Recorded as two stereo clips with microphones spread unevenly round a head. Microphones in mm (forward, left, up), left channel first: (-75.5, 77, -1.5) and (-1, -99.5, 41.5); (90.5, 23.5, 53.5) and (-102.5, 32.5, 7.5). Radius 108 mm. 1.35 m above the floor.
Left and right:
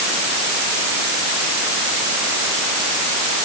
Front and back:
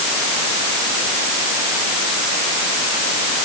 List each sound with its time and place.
Only background noise.